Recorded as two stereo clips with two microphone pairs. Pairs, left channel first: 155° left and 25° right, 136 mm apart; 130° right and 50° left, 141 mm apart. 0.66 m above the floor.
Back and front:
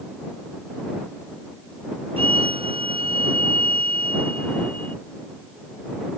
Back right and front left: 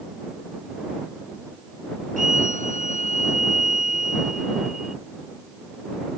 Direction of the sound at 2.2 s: 25° left.